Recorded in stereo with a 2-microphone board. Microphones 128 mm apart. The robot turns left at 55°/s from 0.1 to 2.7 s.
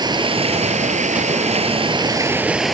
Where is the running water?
35° right; by 2.7 s straight behind.